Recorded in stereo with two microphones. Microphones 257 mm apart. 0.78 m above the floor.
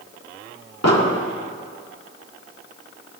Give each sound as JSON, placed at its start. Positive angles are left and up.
{"t": 0.8, "sound": "an explosion", "side_deg": 80, "distance_m": 1.6}